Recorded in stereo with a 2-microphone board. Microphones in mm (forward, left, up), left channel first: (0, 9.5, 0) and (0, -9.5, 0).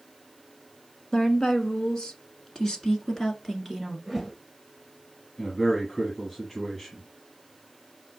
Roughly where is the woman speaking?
Left.